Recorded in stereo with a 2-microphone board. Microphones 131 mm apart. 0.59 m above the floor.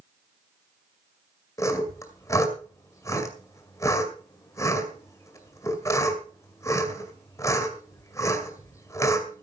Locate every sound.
1.6 s sawing: 20° left (ahead or behind), 2 m